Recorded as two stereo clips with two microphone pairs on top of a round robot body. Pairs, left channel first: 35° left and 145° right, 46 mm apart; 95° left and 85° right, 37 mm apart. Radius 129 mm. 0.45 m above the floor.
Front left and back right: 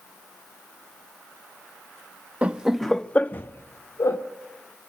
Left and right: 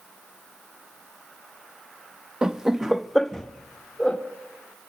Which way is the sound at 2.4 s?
160° right.